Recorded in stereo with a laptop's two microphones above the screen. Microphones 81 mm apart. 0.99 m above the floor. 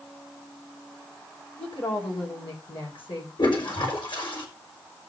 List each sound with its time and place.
1.6 s a woman speaking: 85° left, 4.5 m
3.4 s a toilet flushing: 80° left, 4 m